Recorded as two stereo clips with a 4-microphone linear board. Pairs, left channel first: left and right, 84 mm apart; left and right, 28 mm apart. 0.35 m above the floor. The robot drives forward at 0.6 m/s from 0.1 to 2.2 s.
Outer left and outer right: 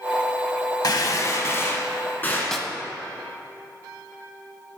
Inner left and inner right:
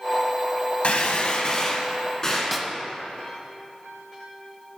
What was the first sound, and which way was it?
A gunshot, 60° left (ahead or behind).